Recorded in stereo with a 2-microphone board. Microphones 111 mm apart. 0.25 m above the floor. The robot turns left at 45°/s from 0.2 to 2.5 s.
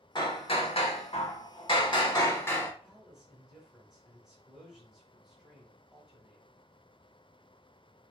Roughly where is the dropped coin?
No dropped coin in this recording.